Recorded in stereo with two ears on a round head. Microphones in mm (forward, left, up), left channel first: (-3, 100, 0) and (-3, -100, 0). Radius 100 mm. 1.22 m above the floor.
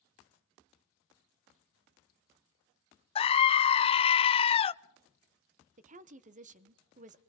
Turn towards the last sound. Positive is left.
turn(degrees=-35)  # may be behind; listen again after turning